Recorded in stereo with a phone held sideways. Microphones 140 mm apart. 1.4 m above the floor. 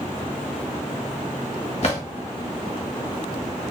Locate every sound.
1.8 s a drawer: 50° left (ahead or behind), 1.2 m